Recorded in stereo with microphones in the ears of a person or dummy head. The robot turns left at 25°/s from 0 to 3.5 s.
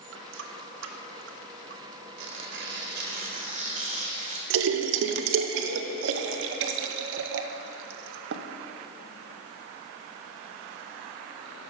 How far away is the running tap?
About 0.9 m.